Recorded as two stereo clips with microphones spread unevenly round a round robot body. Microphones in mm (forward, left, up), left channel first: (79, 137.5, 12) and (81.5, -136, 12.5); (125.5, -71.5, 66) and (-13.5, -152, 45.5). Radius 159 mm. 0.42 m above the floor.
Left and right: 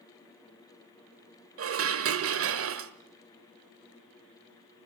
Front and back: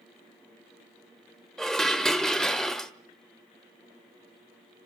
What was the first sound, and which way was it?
Dishes clattering, 60° right.